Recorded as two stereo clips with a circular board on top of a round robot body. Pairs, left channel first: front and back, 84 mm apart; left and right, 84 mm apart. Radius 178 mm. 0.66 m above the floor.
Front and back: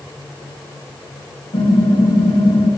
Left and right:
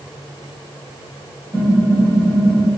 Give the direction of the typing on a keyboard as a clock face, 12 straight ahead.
12 o'clock.